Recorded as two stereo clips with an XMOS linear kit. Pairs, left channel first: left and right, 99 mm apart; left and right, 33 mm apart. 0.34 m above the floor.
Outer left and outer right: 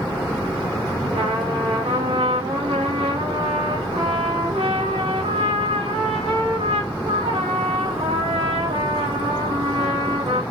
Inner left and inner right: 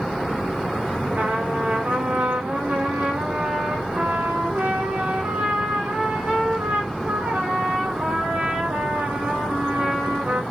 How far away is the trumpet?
About 6 m.